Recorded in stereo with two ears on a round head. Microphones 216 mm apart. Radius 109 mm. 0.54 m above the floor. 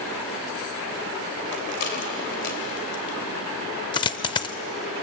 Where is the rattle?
45° left (ahead or behind), 2.5 m.